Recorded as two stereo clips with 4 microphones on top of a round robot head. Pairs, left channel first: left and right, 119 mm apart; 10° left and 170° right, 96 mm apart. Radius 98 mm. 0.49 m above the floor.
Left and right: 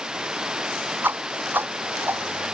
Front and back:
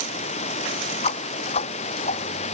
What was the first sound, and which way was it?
Running water, 5° right.